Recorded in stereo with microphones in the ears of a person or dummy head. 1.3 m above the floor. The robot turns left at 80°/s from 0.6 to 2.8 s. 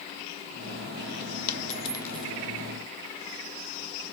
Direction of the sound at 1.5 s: 50° left (ahead or behind).